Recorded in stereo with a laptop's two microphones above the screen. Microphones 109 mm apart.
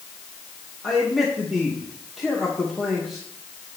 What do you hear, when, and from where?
0.8 s a man speaking: centre (ahead or behind), 1.5 m